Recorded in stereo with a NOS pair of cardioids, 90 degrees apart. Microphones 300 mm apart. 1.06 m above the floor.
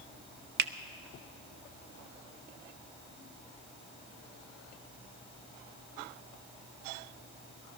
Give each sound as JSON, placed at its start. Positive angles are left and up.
{"t": 0.6, "sound": "a finger snap", "azimuth_deg": -35, "distance_m": 0.6}